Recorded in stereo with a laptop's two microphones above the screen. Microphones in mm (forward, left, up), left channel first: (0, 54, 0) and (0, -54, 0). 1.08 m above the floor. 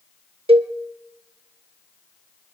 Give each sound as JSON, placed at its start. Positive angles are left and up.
{"t": 0.5, "sound": "a cowbell", "side_deg": -65, "distance_m": 0.7}